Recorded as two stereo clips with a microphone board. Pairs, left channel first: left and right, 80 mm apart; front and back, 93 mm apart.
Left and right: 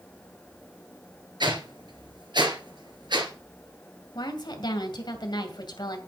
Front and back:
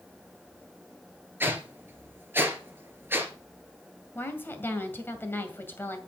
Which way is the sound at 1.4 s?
115° right.